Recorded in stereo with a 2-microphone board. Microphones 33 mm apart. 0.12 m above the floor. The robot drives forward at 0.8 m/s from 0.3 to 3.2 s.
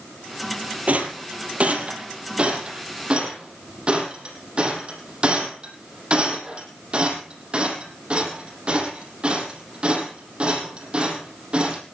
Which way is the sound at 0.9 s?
50° right (ahead or behind).